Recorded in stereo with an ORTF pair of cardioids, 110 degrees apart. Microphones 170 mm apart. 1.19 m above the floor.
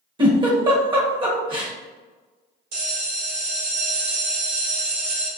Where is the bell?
65° right, 1.8 m.